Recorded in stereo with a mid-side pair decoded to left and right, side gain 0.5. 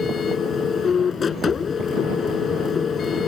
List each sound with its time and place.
0.0 s a machine running: 40° left